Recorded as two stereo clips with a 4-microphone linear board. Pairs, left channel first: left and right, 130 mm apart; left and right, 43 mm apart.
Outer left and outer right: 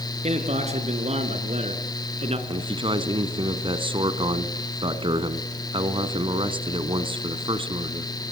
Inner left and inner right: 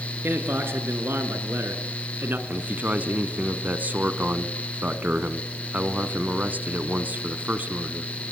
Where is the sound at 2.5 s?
40° right (ahead or behind), 1.6 m.